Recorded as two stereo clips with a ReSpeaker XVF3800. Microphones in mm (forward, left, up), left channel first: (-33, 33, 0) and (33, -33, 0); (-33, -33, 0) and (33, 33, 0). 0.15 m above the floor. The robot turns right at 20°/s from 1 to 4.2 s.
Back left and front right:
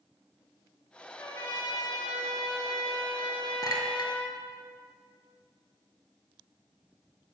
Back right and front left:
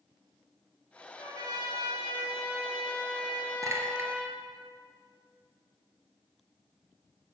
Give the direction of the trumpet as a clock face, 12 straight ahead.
10 o'clock.